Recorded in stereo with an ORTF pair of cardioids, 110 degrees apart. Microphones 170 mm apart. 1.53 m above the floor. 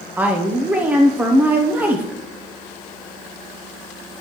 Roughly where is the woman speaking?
Ahead.